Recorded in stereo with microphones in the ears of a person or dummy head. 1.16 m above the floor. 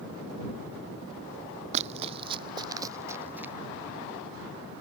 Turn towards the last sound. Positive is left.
turn(degrees=-10)  # may be behind; listen again after turning